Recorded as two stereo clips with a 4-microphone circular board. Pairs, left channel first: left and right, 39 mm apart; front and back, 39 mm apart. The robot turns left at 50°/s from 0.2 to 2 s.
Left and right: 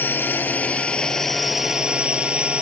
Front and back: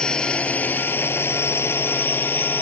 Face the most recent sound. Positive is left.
turn(degrees=-35)